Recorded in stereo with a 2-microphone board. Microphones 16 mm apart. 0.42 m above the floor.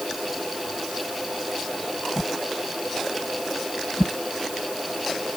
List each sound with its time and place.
2.2 s a whoosh: 75° right (ahead or behind)